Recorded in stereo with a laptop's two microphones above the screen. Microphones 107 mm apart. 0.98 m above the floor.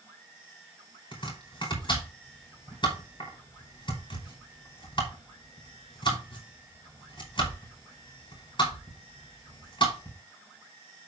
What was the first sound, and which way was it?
Chopping, 50° left (ahead or behind).